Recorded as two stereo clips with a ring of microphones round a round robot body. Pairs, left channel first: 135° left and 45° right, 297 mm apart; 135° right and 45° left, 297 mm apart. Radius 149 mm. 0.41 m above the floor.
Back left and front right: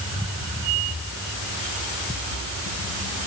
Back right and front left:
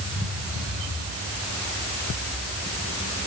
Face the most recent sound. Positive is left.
No sound to turn to.